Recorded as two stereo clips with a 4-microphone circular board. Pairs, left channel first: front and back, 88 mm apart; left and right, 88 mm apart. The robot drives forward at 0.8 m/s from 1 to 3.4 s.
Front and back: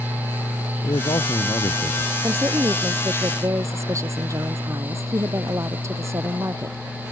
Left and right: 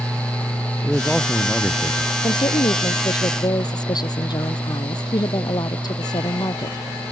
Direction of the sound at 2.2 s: 120° left.